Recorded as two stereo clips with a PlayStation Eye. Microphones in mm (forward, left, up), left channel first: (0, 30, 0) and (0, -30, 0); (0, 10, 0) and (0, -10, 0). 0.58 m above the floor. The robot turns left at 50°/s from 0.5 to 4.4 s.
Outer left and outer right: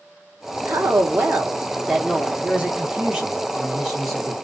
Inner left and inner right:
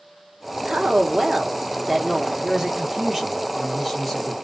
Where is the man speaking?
25° right (ahead or behind), 0.8 m; by 4.3 s 5° left (ahead or behind), 0.8 m.